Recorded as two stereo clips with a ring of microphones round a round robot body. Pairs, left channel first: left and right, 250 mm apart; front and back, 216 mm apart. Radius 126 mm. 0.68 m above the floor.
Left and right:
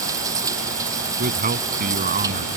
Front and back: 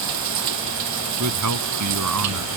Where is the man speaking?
150° right.